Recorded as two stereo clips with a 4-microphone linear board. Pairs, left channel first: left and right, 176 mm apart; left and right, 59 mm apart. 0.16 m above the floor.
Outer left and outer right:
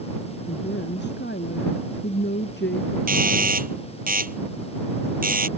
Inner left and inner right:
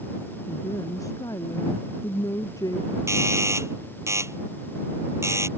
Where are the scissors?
No scissors in this recording.